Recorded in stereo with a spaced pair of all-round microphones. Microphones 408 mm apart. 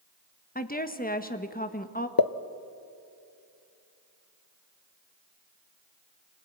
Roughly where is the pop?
Left.